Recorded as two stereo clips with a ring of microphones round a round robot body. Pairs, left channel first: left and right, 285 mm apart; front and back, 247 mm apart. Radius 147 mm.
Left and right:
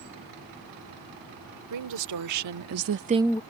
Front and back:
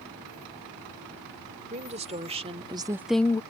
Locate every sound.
1.7 s a woman speaking: 115° right; by 3.4 s 45° left